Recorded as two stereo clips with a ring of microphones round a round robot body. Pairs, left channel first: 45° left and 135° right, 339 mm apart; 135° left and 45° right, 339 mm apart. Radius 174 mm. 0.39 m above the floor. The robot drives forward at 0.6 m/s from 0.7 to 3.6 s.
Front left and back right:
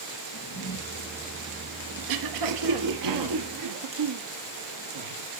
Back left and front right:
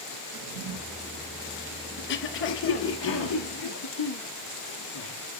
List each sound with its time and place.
0.3 s a drawer: 20° right, 6 m
2.0 s throat clearing: 165° right, 1.3 m; by 5.1 s 170° right, 2 m